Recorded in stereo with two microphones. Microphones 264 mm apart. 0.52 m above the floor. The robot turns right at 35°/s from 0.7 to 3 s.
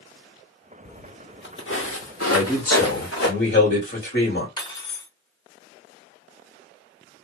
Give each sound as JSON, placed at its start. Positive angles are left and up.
{"t": 0.8, "sound": "footsteps", "side_deg": 40, "distance_m": 0.6}
{"t": 2.3, "sound": "a man speaking", "side_deg": 25, "distance_m": 1.8}
{"t": 4.6, "sound": "cutlery clinking", "side_deg": 15, "distance_m": 0.9}